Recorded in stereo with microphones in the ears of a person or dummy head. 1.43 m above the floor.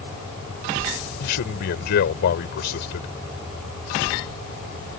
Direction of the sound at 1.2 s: 60° left (ahead or behind).